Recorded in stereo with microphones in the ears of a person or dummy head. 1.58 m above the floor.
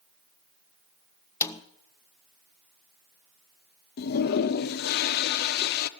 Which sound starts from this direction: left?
A toilet flushing, at 4.0 s.